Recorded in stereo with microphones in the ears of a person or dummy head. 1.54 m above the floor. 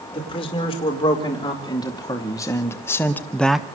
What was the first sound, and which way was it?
A man speaking, 30° left (ahead or behind).